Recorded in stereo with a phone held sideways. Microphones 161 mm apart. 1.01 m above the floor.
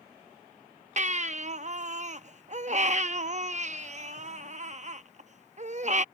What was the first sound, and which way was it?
A baby crying, 45° right (ahead or behind).